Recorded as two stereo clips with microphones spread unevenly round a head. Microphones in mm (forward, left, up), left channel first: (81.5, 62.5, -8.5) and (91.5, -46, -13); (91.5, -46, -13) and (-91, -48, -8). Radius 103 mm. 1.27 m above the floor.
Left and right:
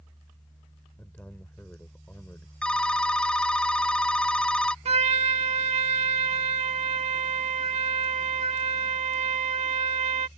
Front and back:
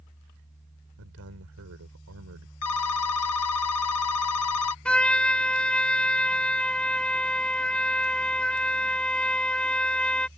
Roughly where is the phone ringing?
Ahead.